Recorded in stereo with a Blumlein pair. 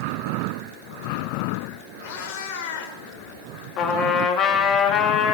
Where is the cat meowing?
50° left, 4 m.